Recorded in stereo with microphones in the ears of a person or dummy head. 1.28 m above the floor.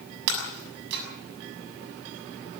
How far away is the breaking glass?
About 6.5 m.